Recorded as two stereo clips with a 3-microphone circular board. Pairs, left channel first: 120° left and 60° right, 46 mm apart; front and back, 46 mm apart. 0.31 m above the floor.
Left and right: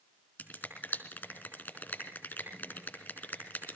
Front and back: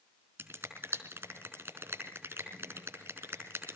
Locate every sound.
0.4 s a finger snap: 170° left, 4 m